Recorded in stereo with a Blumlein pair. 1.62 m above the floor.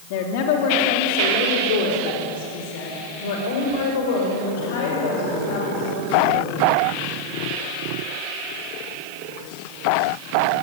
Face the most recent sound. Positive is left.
turn(degrees=55)